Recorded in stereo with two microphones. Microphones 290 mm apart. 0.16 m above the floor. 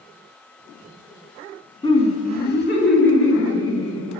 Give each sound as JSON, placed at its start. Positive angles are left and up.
{"t": 1.8, "sound": "laughter", "side_deg": 15, "distance_m": 1.2}